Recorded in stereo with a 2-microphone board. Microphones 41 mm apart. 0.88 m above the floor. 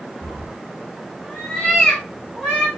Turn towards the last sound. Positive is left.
turn(degrees=0)  # may be behind; listen again after turning